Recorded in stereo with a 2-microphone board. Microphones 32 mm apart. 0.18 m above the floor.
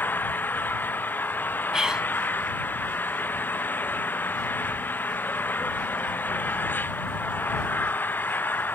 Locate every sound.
0.0 s an engine running: 75° left (ahead or behind)
1.7 s whispering: 25° right (ahead or behind)